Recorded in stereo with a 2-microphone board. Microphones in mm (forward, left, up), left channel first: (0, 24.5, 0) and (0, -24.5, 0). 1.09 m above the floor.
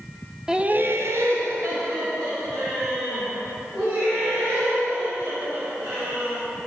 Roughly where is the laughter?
Centre.